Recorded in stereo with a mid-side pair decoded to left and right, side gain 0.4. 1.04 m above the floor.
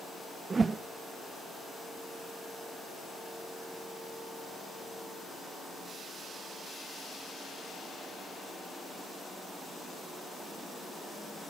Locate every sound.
0.5 s a whoosh: 40° right, 0.6 m